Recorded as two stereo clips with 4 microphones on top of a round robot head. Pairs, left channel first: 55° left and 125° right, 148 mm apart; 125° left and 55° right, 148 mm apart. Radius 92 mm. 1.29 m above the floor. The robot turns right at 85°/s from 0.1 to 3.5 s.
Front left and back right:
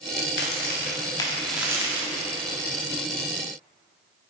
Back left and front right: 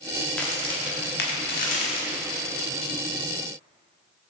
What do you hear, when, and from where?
0.3 s a crack: 40° left, 1.0 m; by 2.3 s 155° right, 1.0 m